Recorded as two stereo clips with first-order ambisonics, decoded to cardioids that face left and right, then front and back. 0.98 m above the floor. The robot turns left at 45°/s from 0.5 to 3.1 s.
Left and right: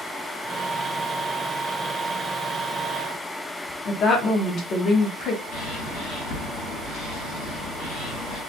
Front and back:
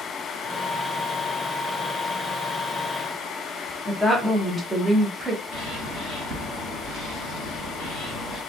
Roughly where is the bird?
Behind left.